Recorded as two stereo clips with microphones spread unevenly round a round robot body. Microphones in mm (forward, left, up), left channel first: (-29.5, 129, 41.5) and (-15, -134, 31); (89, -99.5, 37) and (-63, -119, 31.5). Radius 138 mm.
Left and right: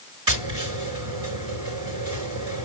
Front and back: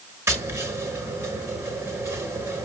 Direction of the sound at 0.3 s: 100° right.